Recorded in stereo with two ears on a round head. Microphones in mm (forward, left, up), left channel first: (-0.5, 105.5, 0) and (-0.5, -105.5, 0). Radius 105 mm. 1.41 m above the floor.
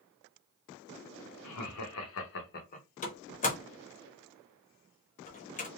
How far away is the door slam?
About 0.8 m.